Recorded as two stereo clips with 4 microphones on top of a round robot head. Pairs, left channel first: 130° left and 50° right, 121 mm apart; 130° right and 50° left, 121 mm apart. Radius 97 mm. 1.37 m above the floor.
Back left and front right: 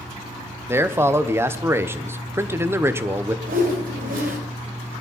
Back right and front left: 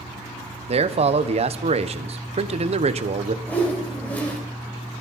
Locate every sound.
0.7 s a man speaking: 20° left, 1.0 m
3.5 s a whoosh: 50° right, 2.5 m